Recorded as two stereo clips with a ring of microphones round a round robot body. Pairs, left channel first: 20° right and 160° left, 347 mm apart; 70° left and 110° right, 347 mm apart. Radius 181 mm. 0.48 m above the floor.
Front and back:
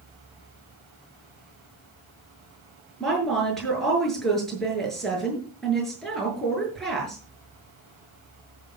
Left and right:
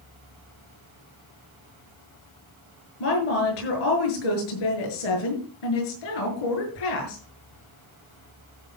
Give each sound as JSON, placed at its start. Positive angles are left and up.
{"t": 3.0, "sound": "a woman speaking", "azimuth_deg": 65, "distance_m": 7.0}